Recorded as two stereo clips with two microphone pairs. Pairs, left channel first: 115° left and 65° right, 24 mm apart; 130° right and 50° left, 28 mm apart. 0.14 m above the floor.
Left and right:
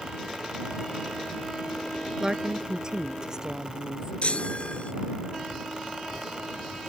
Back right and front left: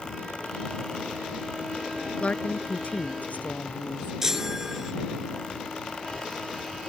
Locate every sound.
2.2 s a woman speaking: 125° right
4.2 s a chime: 120° left